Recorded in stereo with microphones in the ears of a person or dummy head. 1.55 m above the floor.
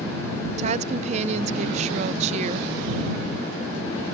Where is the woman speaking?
40° right (ahead or behind).